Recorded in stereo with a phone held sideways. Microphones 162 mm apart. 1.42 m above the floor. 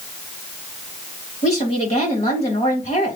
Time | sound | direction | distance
1.4 | a woman speaking | 45° left (ahead or behind) | 3 m